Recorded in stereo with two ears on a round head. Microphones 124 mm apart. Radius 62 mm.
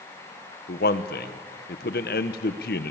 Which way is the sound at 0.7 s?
75° left (ahead or behind).